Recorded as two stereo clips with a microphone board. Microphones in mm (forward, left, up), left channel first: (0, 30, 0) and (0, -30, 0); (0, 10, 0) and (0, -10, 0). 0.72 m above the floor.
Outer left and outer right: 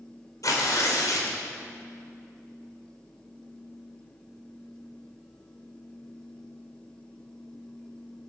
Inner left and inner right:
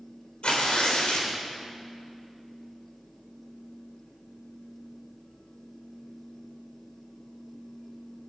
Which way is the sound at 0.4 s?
70° left (ahead or behind).